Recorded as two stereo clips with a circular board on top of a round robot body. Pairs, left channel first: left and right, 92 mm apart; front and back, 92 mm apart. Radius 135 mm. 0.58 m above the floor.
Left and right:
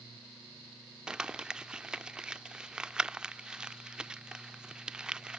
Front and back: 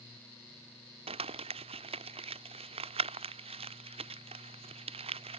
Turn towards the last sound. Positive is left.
turn(degrees=-170)